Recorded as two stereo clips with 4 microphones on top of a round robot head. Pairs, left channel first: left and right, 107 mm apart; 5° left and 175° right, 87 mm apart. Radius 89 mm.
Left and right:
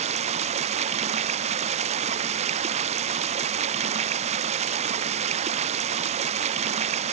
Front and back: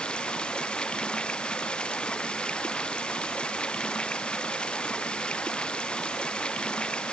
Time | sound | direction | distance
0.0 | running water | 75° right | ?